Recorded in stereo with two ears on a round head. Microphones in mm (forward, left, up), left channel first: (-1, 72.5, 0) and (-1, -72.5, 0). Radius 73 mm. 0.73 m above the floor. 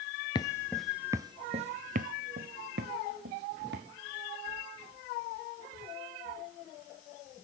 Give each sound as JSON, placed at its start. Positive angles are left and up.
{"t": 0.3, "sound": "footsteps", "side_deg": 30, "distance_m": 0.7}